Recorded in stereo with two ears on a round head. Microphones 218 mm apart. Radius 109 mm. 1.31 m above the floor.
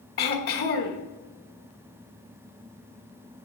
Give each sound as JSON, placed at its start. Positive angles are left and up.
{"t": 0.2, "sound": "throat clearing", "side_deg": 40, "distance_m": 1.3}